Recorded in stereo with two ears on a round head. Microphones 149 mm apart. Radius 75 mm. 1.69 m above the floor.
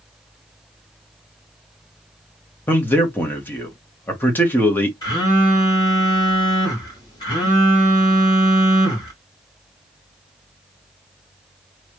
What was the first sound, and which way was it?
A man speaking, 15° left (ahead or behind).